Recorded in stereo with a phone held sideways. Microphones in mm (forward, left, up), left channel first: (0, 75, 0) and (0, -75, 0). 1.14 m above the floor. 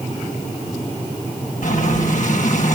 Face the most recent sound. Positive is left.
turn(degrees=60)  # may be behind; listen again after turning